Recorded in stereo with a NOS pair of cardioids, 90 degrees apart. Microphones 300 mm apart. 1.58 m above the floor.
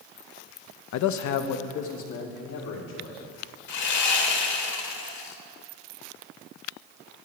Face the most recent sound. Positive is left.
turn(degrees=60)